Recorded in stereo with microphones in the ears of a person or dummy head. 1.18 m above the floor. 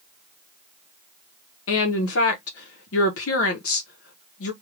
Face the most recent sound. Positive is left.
turn(degrees=70)  # may be behind; listen again after turning